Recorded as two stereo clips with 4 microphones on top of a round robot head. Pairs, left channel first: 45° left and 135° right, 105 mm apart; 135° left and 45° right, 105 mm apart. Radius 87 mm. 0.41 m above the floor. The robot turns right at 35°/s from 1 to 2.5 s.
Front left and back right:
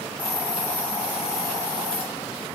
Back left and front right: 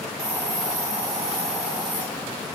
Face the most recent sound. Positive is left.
turn(degrees=20)